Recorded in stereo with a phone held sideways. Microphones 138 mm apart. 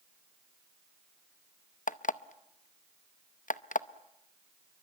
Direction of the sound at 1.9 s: 70° left (ahead or behind).